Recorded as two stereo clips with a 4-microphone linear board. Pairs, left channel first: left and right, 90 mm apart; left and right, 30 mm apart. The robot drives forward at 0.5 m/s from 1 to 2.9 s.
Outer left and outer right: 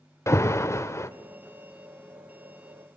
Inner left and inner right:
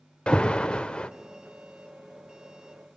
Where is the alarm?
30° left (ahead or behind), 1.1 m.